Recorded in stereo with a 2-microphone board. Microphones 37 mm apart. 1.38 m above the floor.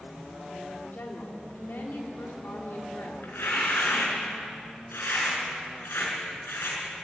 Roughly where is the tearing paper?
Left.